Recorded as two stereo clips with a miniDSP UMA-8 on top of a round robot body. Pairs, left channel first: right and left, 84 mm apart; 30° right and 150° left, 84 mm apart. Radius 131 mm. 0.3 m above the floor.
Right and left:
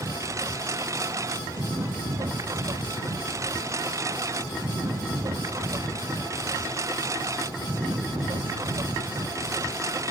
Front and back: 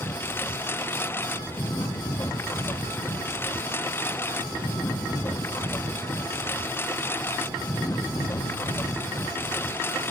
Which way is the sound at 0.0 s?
35° left.